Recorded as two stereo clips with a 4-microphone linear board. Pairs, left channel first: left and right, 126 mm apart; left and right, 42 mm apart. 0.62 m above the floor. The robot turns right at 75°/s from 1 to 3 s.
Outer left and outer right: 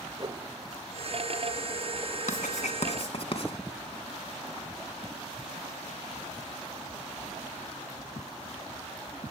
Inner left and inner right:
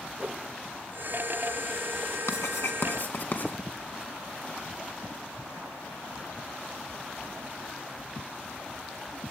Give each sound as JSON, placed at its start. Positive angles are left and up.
{"t": 0.2, "sound": "a whoosh", "side_deg": -35, "distance_m": 1.9}
{"t": 2.3, "sound": "writing", "side_deg": 75, "distance_m": 3.0}